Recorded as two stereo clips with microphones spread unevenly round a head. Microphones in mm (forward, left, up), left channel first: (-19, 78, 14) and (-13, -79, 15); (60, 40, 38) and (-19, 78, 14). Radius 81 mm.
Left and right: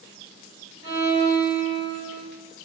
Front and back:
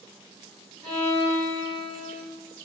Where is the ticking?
I don't hear ticking.